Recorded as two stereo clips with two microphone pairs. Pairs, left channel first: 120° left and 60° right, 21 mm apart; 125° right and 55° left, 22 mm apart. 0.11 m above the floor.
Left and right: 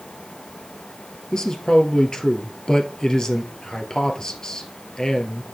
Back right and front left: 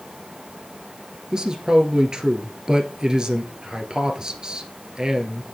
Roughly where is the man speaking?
Left.